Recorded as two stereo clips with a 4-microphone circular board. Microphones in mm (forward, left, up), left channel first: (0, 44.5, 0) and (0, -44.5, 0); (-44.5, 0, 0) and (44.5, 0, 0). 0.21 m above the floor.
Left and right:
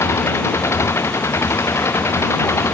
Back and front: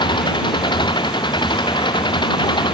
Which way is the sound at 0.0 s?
150° left.